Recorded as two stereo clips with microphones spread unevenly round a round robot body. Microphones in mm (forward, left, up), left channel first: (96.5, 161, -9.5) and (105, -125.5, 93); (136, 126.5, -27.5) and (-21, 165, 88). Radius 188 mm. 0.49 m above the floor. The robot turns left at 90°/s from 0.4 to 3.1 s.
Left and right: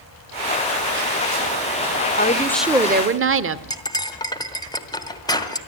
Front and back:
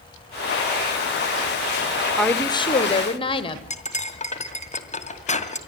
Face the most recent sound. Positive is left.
turn(degrees=20)